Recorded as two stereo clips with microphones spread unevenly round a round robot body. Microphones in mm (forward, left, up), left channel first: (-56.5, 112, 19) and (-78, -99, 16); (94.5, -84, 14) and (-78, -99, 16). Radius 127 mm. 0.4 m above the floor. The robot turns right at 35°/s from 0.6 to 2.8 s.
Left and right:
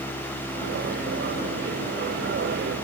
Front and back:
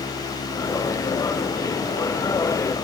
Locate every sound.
Only background noise.